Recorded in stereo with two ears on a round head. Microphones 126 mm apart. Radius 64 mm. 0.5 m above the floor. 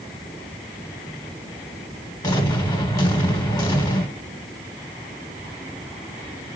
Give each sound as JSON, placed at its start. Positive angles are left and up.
{"t": 2.2, "sound": "an explosion", "side_deg": 25, "distance_m": 1.2}